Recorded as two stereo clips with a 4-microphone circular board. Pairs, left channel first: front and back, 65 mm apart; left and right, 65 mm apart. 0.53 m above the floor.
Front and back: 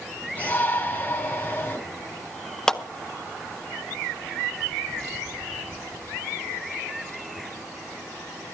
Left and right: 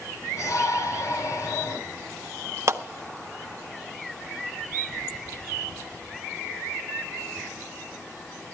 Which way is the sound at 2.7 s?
80° right.